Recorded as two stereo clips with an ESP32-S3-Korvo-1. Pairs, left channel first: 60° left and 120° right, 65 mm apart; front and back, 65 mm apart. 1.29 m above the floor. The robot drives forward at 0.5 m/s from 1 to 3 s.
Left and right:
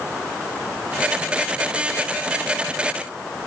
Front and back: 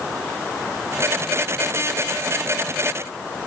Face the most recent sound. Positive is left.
No sound to turn to.